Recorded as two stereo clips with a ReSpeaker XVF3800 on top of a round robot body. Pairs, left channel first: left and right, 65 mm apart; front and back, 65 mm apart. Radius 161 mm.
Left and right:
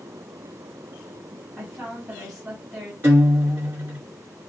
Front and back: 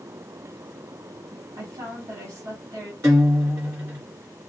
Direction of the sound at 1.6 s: 170° right.